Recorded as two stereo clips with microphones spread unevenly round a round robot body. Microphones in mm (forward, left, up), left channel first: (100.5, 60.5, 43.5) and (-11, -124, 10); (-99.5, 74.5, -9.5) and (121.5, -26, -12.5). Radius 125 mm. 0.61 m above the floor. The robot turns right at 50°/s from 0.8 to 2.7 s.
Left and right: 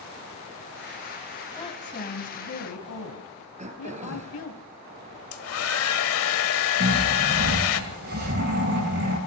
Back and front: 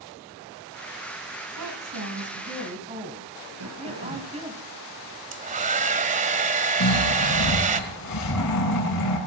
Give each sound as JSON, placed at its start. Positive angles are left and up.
{"t": 1.6, "sound": "a woman speaking", "azimuth_deg": -15, "distance_m": 3.5}
{"t": 3.6, "sound": "throat clearing", "azimuth_deg": -60, "distance_m": 3.0}
{"t": 5.3, "sound": "a hair dryer", "azimuth_deg": 35, "distance_m": 1.9}
{"t": 6.8, "sound": "snoring", "azimuth_deg": -175, "distance_m": 7.5}